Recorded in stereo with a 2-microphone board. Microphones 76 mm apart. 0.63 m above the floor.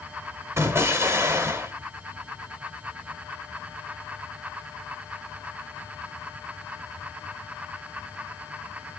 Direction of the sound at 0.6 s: 35° right (ahead or behind).